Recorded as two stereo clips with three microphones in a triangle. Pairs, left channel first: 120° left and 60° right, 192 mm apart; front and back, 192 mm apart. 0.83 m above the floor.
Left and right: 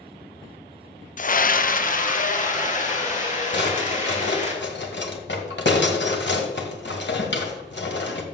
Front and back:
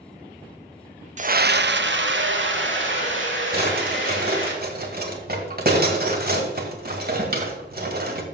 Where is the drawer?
145° left, 1.7 m.